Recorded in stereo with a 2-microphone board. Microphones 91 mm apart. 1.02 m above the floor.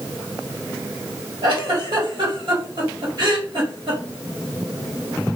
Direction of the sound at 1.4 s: 55° right (ahead or behind).